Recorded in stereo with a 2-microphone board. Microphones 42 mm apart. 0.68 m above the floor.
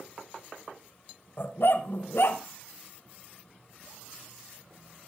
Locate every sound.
1.4 s a dog barking: 60° left (ahead or behind), 1.3 m